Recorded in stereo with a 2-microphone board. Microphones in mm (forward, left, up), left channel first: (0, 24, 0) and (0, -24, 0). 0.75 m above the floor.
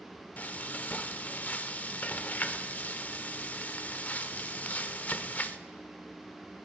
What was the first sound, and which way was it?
Frying, 35° left (ahead or behind).